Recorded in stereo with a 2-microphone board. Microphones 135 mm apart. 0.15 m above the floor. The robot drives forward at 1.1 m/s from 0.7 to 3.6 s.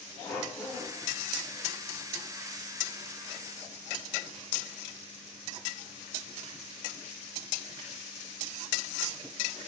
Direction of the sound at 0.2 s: 10° left (ahead or behind).